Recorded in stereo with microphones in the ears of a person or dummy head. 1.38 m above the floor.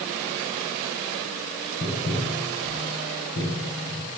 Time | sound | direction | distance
1.8 | tapping | 55° left (ahead or behind) | 7 m